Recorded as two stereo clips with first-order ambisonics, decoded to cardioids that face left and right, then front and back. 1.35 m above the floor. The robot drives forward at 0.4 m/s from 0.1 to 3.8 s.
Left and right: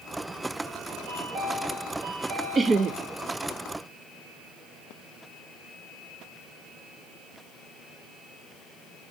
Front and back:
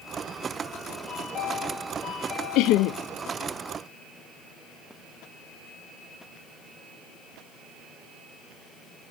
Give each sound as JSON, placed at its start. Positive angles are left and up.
{"t": 1.1, "sound": "a chime", "azimuth_deg": -65, "distance_m": 5.0}
{"t": 2.5, "sound": "laughter", "azimuth_deg": -20, "distance_m": 0.6}